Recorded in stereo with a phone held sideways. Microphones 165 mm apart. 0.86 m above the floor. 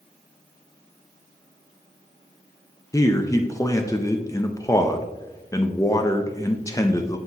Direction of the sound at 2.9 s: 20° left (ahead or behind).